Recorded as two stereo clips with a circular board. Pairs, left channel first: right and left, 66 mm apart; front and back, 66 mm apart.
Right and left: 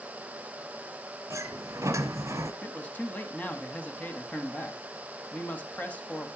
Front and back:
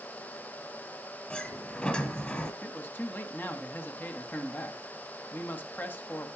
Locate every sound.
1.3 s a sliding door: 70° left, 0.9 m
2.6 s a man speaking: 35° right, 1.3 m